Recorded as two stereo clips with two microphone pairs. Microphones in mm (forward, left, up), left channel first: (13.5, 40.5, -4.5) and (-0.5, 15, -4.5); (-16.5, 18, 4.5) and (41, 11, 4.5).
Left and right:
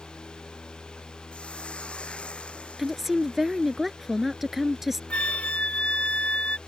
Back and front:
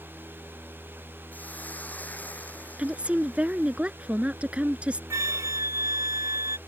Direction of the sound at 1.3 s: 110° left.